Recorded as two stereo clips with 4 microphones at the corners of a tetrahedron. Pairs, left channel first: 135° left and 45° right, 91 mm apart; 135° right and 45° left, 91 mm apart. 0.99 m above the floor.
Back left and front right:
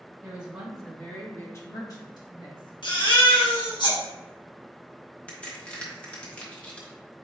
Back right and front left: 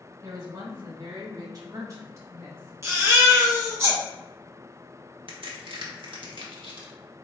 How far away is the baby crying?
About 1.4 m.